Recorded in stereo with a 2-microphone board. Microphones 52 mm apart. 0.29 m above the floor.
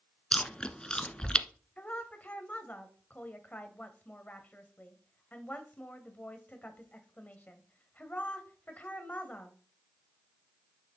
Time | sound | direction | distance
0.3 | chewing | 15° left (ahead or behind) | 0.6 m
1.8 | a woman speaking | 30° left (ahead or behind) | 1.5 m